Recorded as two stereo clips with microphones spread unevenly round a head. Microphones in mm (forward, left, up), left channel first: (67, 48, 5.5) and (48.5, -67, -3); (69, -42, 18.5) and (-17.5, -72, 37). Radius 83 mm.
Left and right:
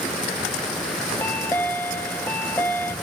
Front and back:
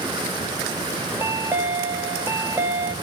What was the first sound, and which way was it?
A chime, 140° left.